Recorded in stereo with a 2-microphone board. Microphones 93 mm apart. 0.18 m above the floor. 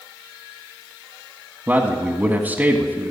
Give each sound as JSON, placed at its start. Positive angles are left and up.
{"t": 1.7, "sound": "a man speaking", "side_deg": -20, "distance_m": 1.2}